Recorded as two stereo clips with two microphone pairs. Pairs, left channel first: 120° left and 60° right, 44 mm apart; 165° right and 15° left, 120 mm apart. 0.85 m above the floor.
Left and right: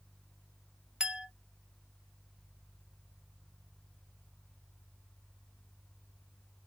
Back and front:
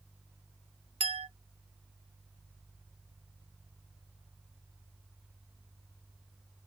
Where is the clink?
10° left, 0.5 m.